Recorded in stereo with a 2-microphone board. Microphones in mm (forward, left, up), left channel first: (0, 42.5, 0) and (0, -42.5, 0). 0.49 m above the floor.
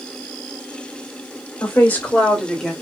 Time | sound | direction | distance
1.6 | a woman speaking | 25° left (ahead or behind) | 2 m